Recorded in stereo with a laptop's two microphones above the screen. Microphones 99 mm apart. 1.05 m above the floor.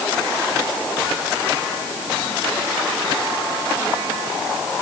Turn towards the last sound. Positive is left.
No sound to turn to.